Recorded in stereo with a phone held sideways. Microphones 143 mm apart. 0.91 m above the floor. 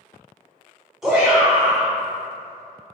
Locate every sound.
1.0 s a shout: 5° right (ahead or behind), 1.0 m